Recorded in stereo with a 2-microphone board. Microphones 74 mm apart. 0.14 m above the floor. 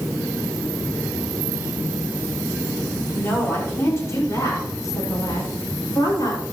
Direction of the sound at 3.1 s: 30° left (ahead or behind).